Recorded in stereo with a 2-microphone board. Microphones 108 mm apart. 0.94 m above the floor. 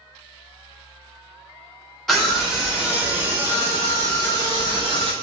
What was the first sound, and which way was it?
A scream, centre (ahead or behind).